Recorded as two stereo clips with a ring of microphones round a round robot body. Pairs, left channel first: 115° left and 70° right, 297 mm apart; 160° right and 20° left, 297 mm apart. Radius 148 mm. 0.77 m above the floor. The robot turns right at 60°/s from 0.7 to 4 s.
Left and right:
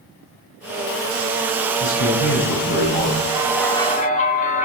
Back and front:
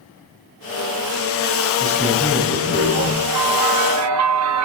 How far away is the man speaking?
About 7.5 m.